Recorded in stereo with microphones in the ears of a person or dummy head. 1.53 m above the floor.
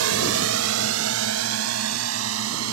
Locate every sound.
0.0 s a drone: 75° right (ahead or behind); by 2.8 s 85° right